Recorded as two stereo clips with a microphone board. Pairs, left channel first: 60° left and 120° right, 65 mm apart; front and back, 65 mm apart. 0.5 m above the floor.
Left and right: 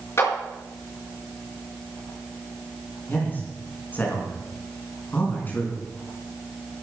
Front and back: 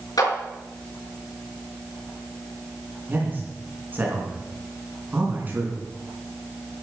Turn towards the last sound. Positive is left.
turn(degrees=120)